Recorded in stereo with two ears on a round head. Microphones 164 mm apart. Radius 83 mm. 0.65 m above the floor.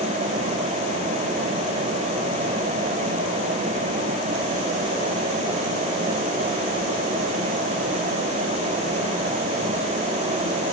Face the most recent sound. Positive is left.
No sound to turn to.